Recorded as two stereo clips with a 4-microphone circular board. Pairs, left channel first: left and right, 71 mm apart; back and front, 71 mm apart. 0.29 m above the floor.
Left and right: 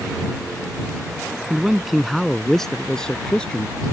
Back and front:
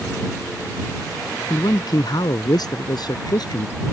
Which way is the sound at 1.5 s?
170° right.